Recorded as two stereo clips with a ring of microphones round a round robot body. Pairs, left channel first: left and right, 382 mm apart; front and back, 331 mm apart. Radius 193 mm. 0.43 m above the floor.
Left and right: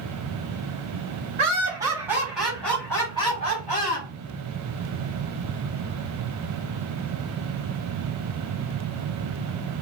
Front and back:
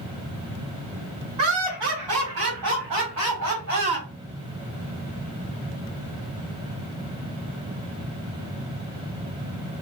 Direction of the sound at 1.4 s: 165° right.